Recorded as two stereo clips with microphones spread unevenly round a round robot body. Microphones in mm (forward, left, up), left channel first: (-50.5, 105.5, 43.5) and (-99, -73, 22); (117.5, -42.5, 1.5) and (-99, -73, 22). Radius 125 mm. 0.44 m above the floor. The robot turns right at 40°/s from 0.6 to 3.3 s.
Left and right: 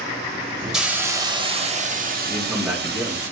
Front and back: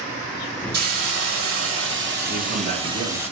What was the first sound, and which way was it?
A hiss, 170° left.